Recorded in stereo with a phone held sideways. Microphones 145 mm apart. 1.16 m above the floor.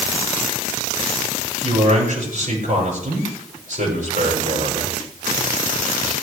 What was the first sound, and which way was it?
A man speaking, 65° right (ahead or behind).